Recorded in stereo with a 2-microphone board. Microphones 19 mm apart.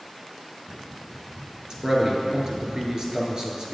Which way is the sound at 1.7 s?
40° right (ahead or behind).